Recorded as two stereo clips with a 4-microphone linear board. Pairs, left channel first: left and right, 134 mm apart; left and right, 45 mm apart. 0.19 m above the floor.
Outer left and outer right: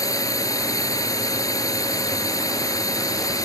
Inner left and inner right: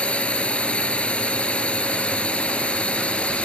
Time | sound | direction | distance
0.0 | a drone | 25° left (ahead or behind) | ?